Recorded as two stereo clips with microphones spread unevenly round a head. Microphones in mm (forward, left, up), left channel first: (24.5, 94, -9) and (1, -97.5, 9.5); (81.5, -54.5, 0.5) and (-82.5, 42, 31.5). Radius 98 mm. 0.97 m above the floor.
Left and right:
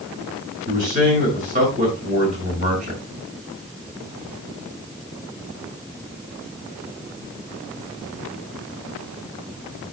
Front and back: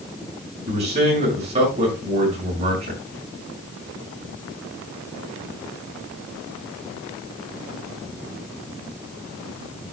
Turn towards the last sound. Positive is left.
turn(degrees=-150)